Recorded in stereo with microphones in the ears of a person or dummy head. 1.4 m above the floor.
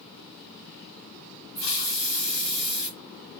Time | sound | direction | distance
1.6 | a hiss | 60° left (ahead or behind) | 2.0 m